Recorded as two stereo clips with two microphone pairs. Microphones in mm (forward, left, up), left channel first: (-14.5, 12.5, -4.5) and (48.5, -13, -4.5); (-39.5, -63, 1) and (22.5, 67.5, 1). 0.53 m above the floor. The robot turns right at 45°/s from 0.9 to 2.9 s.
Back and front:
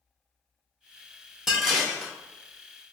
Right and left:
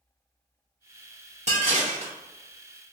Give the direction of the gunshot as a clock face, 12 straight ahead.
No gunshot in this recording.